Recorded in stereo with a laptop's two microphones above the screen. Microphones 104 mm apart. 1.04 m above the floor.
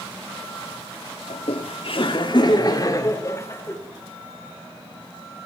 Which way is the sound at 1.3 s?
75° left (ahead or behind).